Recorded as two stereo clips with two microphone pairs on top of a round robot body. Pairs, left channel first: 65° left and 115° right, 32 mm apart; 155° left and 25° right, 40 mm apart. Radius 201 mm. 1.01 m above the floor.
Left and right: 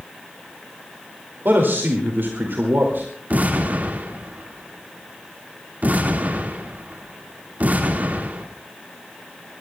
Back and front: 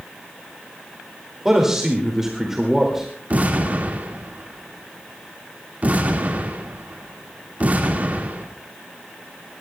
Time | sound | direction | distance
1.4 | a man speaking | 110° right | 2.5 m
3.3 | an explosion | 80° right | 1.9 m